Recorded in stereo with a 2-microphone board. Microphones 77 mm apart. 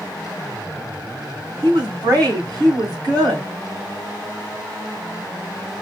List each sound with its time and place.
1.6 s a woman speaking: 50° right (ahead or behind), 1.8 m